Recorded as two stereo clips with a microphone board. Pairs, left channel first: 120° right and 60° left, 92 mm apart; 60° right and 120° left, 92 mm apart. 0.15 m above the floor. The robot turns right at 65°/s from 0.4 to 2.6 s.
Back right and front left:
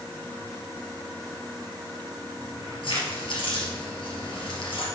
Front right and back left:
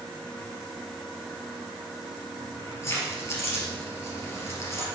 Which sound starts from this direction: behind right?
Keys jangling, at 2.4 s.